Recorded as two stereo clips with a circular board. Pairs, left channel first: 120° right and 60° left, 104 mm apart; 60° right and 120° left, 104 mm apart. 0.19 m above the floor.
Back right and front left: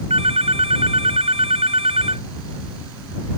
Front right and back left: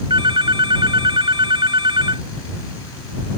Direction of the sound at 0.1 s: 80° left.